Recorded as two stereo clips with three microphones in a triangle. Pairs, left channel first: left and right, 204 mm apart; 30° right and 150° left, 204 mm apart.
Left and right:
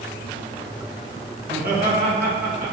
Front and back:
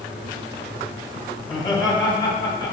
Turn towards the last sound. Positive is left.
turn(degrees=-95)